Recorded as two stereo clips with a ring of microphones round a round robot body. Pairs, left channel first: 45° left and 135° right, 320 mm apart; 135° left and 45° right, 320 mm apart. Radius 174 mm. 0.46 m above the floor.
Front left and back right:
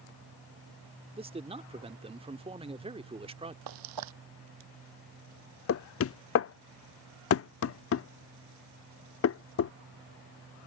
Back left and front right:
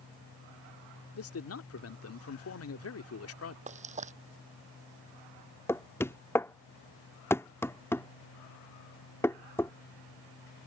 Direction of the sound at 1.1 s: 155° left.